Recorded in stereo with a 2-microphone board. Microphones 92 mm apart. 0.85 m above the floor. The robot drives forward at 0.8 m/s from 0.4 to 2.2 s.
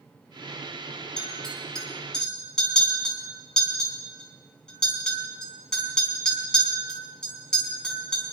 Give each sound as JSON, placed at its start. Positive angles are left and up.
{"t": 1.2, "sound": "a clink", "side_deg": 10, "distance_m": 3.5}